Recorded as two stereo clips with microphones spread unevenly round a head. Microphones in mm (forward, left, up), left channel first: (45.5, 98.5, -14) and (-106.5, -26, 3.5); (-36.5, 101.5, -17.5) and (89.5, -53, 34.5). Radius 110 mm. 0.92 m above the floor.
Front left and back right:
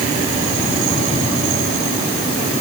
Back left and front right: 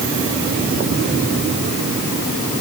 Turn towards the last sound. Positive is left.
No sound to turn to.